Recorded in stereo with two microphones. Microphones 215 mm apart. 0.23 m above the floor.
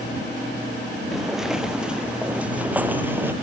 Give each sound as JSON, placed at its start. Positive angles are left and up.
{"t": 1.1, "sound": "footsteps", "side_deg": 0}